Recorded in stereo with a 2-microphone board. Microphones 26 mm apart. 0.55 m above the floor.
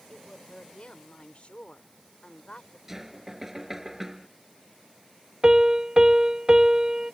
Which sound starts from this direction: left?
A woman speaking, at 0.1 s.